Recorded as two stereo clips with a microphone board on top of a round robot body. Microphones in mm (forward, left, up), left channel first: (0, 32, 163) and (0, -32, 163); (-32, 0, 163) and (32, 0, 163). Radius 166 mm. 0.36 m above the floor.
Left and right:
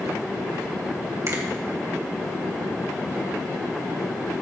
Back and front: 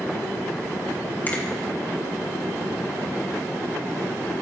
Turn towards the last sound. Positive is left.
turn(degrees=-125)